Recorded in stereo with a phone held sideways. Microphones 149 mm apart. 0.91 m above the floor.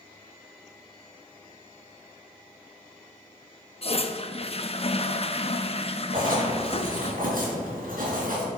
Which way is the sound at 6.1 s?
70° right (ahead or behind).